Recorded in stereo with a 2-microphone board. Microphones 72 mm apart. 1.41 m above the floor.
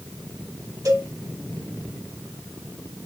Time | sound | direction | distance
0.8 | a cowbell | 55° right (ahead or behind) | 3 m